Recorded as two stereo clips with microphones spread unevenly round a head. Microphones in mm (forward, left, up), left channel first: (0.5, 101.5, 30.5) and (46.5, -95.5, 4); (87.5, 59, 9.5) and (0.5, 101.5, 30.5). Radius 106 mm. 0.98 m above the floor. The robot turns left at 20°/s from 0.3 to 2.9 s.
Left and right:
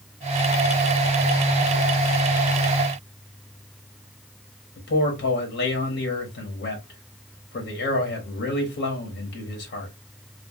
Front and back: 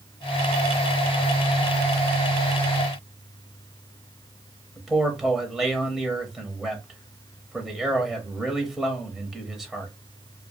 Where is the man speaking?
60° left, 1.1 m.